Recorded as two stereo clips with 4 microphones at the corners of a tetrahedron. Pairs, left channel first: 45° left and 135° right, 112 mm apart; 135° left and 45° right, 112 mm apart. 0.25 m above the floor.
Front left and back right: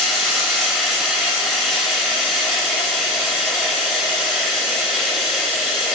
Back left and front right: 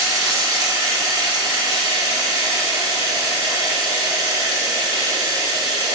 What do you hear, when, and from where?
0.0 s running water: 40° right, 1.0 m